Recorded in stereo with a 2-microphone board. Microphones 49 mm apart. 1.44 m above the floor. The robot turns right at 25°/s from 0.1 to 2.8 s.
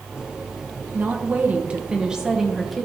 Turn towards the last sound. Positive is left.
turn(degrees=5)